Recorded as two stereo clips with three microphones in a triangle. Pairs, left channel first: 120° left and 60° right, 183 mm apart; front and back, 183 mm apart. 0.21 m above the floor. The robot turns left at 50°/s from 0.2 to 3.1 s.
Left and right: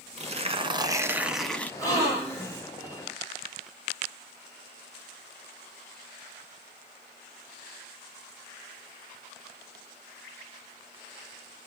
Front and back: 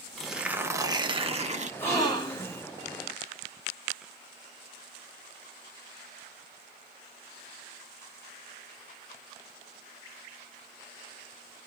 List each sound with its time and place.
0.2 s tearing paper: 90° right, 0.6 m; by 1.7 s 165° right, 0.6 m
1.8 s a gasp: 70° left, 1.6 m; by 2.6 s 30° left, 1.6 m